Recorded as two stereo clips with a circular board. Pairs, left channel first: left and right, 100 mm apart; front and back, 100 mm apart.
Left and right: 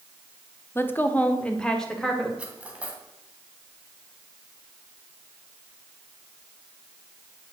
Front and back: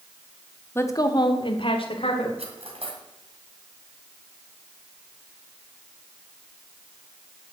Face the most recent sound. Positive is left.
turn(degrees=-170)